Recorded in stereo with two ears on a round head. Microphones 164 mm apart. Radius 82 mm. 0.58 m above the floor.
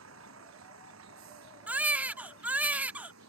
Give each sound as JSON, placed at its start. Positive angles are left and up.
{"t": 0.0, "sound": "a vehicle", "side_deg": -85}
{"t": 1.7, "sound": "a baby crying", "side_deg": -10}